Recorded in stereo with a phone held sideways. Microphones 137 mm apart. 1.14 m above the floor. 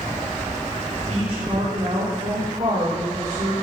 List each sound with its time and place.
1.1 s a woman speaking: 50° right (ahead or behind), 2.5 m; by 3.5 s 65° right (ahead or behind), 5.5 m